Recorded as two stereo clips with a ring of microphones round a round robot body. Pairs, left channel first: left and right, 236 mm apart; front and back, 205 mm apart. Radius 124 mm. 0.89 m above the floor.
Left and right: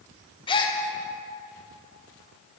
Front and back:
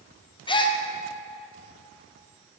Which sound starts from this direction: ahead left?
A gasp, at 0.5 s.